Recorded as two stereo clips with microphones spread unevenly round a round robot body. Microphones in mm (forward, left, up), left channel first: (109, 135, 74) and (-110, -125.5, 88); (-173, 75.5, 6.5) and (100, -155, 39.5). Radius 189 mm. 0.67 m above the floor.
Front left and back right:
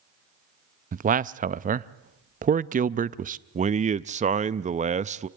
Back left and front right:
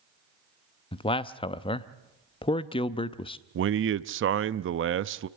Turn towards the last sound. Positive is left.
turn(degrees=-75)